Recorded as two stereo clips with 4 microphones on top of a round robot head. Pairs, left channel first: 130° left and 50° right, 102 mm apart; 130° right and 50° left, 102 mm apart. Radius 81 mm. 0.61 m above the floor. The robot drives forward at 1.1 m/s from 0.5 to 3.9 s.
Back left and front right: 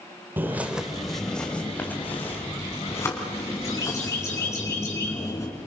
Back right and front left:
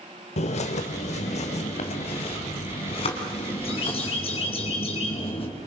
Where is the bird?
120° right, 1.3 m; by 5.5 s 165° right, 4.5 m.